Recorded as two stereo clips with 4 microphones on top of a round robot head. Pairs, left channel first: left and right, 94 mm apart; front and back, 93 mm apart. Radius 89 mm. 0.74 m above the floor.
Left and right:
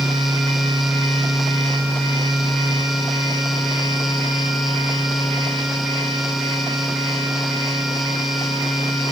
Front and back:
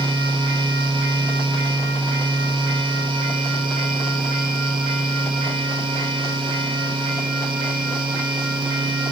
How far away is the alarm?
No alarm in this recording.